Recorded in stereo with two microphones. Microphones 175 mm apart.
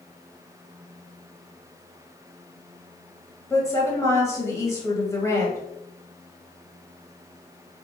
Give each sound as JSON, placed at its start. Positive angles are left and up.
{"t": 3.5, "sound": "a woman speaking", "side_deg": 15, "distance_m": 1.0}